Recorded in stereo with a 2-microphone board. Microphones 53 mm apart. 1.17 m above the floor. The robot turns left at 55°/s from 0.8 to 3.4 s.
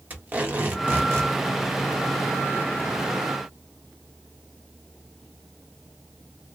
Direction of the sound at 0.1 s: 30° right (ahead or behind).